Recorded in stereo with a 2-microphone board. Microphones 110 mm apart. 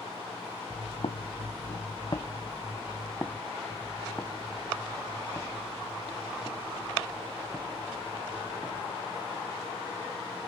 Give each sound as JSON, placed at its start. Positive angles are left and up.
{"t": 0.7, "sound": "footsteps", "side_deg": 55, "distance_m": 0.8}